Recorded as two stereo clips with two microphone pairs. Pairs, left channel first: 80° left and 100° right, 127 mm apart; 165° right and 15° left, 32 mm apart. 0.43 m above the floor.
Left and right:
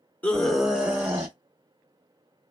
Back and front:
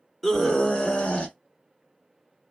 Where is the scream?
125° left, 0.8 m; by 1.4 s 150° right, 1.0 m.